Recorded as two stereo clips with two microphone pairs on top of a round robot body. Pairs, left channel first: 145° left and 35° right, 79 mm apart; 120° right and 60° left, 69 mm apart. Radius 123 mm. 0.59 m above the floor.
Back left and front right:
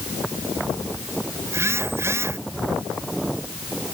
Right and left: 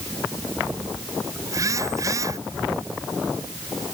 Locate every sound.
1.5 s a phone buzzing: 20° left